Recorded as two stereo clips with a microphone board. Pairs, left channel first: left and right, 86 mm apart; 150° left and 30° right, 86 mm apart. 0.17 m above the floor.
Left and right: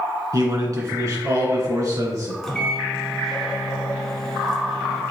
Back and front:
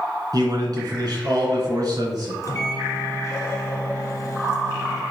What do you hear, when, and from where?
0.3 s a man speaking: 55° right, 2.0 m
2.4 s a microwave: 170° left, 1.0 m